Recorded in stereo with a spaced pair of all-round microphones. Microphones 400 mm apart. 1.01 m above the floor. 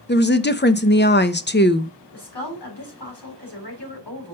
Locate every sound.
0.1 s a woman speaking: 25° left (ahead or behind), 0.6 m
2.1 s a woman speaking: 75° left (ahead or behind), 4 m